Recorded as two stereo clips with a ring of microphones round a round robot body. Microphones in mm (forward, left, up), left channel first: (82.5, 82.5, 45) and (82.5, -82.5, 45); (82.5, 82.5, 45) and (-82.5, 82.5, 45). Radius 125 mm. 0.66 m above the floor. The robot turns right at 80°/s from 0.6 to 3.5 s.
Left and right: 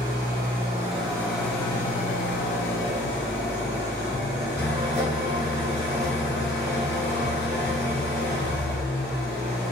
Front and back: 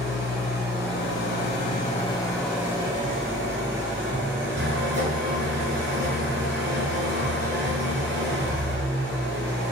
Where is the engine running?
60° right, 1.1 m; by 9.7 s 175° left, 1.1 m.